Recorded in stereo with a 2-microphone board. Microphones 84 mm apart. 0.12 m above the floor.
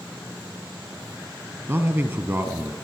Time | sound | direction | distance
1.7 | a man speaking | 30° right (ahead or behind) | 2.5 m